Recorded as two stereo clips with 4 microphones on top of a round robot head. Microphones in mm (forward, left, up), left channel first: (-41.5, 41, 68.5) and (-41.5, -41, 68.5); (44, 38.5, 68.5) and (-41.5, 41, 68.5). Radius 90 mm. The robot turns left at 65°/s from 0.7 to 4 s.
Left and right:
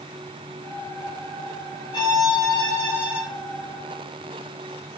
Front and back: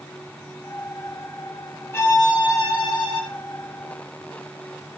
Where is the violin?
60° left, 5.5 m; by 3.2 s 20° right, 5.5 m.